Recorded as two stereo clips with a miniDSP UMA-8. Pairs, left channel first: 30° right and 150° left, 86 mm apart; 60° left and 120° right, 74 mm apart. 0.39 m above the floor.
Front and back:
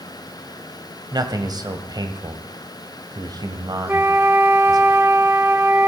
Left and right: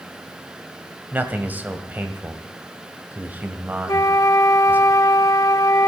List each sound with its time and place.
1.1 s a man speaking: 175° left, 1.6 m
3.9 s a flute: 90° left, 0.9 m